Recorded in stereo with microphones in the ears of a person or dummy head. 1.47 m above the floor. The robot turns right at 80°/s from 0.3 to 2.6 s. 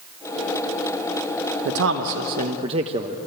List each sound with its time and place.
1.6 s a man speaking: 110° right, 1.0 m; by 3.2 s 35° right, 1.0 m